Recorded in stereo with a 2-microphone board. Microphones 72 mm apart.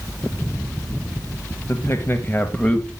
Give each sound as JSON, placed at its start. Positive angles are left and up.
{"t": 1.7, "sound": "a man speaking", "side_deg": 40, "distance_m": 1.2}